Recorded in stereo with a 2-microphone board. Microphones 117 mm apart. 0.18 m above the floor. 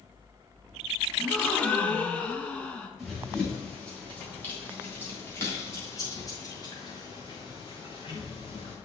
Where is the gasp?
10° left (ahead or behind), 1.3 m.